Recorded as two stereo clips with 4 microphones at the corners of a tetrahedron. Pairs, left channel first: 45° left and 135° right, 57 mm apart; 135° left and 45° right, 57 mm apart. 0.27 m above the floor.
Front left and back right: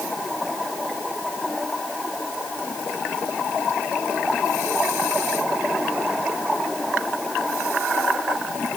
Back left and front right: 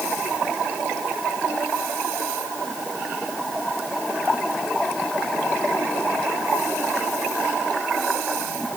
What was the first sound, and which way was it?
Only background noise.